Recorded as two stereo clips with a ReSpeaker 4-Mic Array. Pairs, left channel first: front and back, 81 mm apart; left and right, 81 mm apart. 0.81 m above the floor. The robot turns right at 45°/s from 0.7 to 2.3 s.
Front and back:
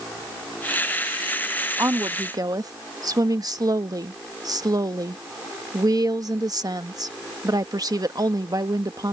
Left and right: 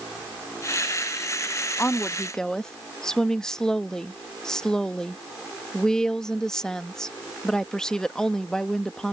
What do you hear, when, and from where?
1.8 s a woman speaking: 145° left; by 9.1 s 170° left